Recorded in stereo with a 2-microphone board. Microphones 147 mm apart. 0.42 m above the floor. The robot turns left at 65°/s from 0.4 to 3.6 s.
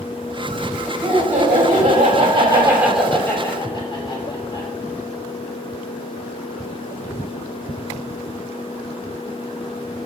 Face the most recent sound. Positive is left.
turn(degrees=140)